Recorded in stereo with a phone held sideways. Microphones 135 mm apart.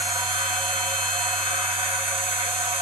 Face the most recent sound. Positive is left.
turn(degrees=-40)  # may be behind; listen again after turning